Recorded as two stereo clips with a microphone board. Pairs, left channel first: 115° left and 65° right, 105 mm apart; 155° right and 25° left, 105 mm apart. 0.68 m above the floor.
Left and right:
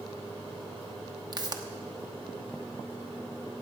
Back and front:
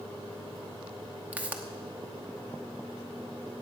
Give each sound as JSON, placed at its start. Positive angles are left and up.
{"t": 1.3, "sound": "a pop", "azimuth_deg": -45, "distance_m": 1.0}